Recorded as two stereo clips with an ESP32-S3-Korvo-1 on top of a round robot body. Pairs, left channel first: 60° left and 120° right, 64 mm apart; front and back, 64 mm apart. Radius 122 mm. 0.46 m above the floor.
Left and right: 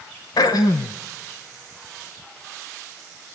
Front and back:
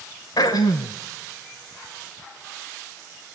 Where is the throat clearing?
30° left, 0.8 m.